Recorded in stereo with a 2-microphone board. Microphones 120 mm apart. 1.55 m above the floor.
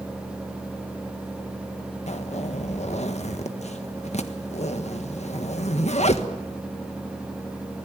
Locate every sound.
2.1 s a zipper: 70° left (ahead or behind), 1.5 m